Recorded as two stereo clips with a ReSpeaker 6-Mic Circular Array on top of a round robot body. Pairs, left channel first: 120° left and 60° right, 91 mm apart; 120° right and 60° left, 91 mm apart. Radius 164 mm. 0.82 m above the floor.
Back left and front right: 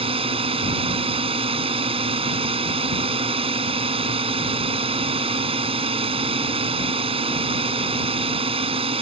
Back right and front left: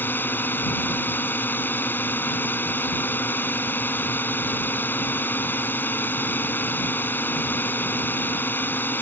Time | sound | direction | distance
0.0 | a drone | 50° right | ?